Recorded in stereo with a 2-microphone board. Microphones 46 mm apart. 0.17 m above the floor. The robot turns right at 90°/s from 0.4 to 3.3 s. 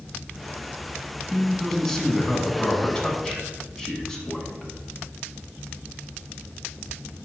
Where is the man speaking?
10° right (ahead or behind), 1.1 m; by 4.7 s 10° left (ahead or behind), 1.1 m.